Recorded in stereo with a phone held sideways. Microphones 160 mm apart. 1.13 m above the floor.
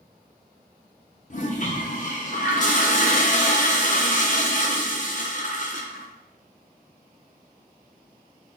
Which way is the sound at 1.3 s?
50° left (ahead or behind).